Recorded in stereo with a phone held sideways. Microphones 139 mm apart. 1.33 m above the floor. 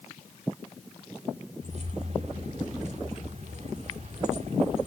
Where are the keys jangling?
55° right (ahead or behind), 2 m.